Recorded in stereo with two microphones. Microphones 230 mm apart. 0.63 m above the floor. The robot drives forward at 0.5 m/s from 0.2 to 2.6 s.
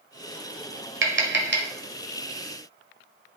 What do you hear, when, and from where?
1.0 s tapping: 60° right (ahead or behind), 1.1 m; by 1.7 s 45° right (ahead or behind), 1.3 m